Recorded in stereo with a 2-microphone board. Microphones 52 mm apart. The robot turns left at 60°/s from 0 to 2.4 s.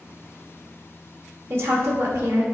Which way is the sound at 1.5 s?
45° right.